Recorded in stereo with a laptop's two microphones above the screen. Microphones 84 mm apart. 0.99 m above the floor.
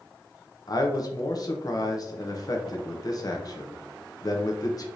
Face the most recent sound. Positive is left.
turn(degrees=45)  # may be behind; listen again after turning